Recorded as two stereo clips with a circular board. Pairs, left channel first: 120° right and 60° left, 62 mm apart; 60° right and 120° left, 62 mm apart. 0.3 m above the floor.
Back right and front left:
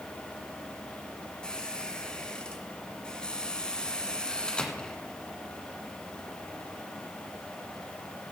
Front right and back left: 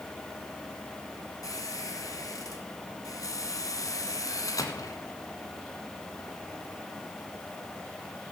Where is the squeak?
45° right, 1.5 m.